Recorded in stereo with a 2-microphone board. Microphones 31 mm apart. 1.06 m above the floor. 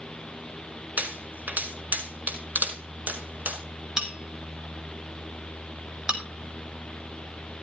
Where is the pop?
55° right (ahead or behind), 5 m.